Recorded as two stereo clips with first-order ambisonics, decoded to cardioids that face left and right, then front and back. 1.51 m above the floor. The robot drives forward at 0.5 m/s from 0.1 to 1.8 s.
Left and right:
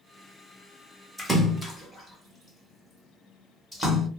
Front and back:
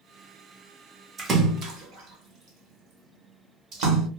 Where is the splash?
165° right, 0.6 m; by 4.1 s 175° right, 0.8 m.